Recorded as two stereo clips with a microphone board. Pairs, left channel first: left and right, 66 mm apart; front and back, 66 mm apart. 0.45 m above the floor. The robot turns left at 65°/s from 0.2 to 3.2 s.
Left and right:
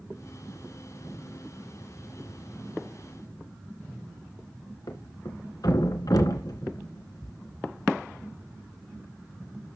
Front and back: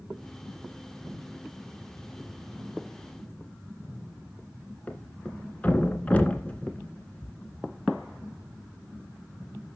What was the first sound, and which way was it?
A thud, 70° left.